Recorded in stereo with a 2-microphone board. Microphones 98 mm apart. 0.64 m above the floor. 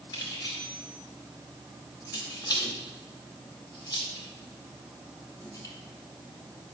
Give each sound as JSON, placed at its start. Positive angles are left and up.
{"t": 0.1, "sound": "keys jangling", "side_deg": 45, "distance_m": 2.5}